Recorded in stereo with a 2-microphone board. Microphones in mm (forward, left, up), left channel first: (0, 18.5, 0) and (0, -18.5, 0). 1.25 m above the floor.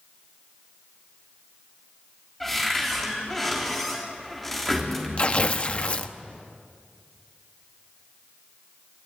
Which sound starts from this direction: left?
Tearing paper, at 5.2 s.